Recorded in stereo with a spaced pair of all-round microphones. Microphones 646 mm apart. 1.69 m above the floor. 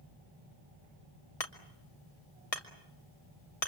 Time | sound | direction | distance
1.4 | hammering | 60° left (ahead or behind) | 2 m